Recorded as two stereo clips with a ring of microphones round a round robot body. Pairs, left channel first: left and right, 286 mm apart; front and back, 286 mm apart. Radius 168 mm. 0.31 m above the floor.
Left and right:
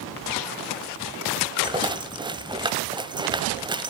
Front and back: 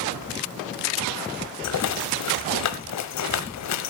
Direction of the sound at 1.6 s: 15° right.